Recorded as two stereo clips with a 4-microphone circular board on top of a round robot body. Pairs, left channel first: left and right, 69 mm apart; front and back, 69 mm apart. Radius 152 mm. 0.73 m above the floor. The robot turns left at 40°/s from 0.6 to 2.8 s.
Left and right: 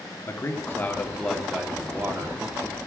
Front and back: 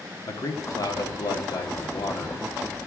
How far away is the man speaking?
About 2 m.